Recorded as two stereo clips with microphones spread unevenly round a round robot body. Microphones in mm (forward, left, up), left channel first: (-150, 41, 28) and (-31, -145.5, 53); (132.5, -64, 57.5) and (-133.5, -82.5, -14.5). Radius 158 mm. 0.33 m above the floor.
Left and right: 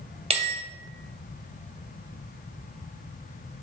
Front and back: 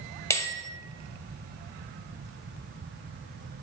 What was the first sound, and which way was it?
A bell, 95° right.